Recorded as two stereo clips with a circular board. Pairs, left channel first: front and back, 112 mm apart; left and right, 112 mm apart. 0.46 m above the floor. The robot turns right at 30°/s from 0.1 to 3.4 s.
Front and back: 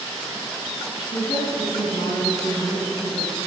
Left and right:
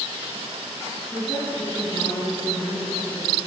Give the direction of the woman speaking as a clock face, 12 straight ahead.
12 o'clock.